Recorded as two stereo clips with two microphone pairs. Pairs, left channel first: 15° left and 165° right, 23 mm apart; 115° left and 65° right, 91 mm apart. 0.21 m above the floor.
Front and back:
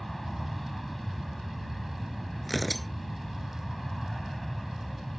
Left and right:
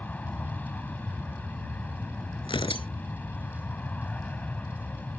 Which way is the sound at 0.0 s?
85° left.